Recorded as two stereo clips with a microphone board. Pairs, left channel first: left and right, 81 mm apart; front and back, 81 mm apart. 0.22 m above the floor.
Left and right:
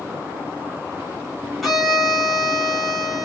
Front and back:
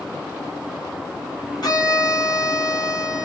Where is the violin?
5° right, 3 m.